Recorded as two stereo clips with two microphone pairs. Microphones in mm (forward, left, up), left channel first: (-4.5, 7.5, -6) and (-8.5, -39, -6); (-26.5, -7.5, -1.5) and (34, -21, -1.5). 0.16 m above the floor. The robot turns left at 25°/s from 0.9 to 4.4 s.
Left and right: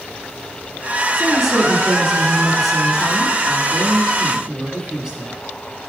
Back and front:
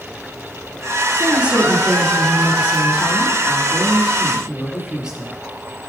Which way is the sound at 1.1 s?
10° left.